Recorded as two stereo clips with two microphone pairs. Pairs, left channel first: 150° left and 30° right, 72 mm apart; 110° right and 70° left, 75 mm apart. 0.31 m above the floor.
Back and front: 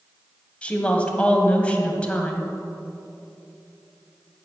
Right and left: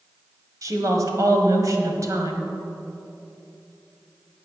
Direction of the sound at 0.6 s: 85° left.